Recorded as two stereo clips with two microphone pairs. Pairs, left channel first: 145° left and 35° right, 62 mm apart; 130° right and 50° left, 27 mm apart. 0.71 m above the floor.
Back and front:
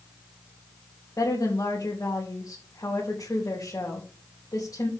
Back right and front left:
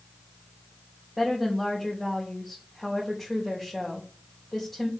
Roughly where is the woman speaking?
Behind left.